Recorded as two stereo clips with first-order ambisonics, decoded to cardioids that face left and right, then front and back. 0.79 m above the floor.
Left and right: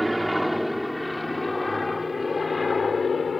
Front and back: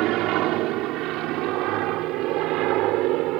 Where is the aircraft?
175° right; by 3.4 s 160° left.